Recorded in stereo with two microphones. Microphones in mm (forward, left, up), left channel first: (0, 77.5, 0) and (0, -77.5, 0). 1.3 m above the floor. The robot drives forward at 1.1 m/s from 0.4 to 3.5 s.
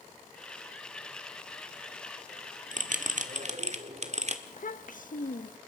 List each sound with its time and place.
2.7 s a bell: 60° right (ahead or behind), 1.4 m; by 4.4 s 50° right (ahead or behind), 1.5 m
4.5 s a child speaking: 65° left (ahead or behind), 1.0 m